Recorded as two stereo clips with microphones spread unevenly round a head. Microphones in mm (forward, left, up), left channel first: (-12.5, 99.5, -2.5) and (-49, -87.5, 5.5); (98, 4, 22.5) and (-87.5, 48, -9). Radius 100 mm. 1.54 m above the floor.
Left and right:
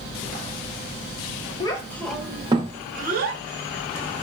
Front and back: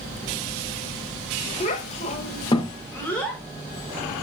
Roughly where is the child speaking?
Ahead.